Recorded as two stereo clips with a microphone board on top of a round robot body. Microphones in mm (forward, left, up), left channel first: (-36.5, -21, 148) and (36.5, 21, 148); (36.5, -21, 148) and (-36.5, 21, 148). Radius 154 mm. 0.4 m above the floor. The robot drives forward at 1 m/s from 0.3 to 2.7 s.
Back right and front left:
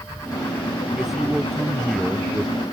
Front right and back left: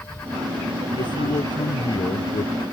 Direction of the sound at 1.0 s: 55° right.